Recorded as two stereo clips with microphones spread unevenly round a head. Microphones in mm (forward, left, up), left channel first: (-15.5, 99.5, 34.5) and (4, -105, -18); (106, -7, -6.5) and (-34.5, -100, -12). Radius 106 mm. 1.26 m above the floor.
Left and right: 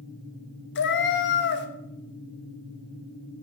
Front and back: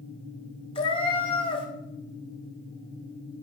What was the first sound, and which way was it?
A cat meowing, 95° left.